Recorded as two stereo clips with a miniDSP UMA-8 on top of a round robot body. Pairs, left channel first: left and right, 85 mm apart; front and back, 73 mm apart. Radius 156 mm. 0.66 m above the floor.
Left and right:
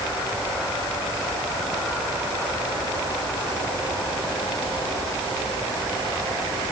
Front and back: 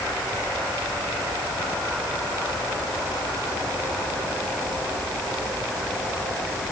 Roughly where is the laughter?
I don't hear laughter.